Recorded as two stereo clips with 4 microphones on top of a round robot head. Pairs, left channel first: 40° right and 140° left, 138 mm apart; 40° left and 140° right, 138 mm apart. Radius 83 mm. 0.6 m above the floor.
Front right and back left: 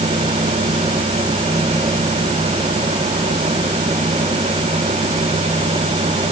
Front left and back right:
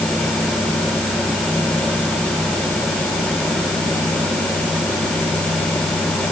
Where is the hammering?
I don't hear hammering.